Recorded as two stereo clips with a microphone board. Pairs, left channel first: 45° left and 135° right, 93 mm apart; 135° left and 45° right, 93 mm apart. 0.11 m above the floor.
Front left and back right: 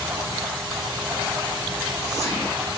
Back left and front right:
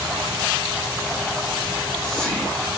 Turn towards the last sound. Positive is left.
turn(degrees=55)